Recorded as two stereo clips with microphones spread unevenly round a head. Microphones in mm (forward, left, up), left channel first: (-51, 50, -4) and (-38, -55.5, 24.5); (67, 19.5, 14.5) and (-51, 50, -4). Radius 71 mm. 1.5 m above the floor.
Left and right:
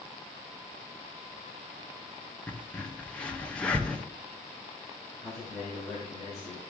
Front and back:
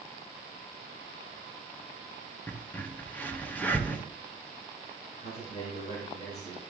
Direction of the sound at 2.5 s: 10° right.